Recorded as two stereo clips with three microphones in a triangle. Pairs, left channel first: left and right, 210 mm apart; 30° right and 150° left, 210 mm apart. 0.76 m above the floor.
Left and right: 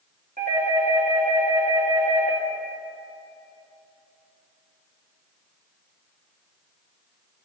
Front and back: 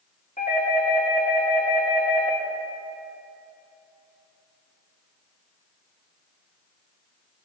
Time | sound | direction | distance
0.4 | a doorbell | 65° right | 1.9 m